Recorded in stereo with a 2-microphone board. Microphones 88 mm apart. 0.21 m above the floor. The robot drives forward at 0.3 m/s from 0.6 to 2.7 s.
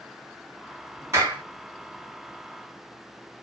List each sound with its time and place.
1.1 s a clap: 30° right (ahead or behind), 2 m